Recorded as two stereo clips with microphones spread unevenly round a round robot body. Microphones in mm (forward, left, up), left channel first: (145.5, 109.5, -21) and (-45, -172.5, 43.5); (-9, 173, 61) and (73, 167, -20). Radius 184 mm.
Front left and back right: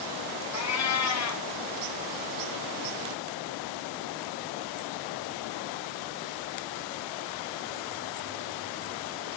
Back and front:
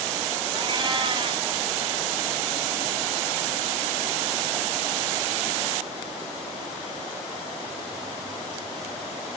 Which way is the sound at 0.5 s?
10° left.